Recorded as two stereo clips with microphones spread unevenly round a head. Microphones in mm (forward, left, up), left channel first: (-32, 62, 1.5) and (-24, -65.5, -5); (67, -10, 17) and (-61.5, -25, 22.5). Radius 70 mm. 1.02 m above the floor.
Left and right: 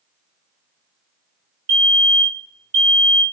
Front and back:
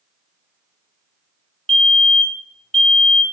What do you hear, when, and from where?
1.7 s a fire alarm: 75° right, 2.5 m